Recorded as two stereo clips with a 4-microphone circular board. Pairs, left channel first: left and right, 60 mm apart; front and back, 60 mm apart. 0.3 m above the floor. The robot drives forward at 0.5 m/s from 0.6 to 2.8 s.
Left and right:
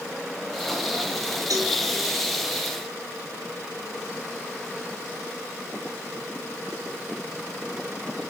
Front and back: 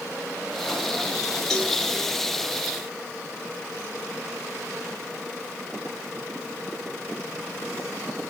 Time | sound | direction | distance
1.5 | a cowbell | 80° right | 3.5 m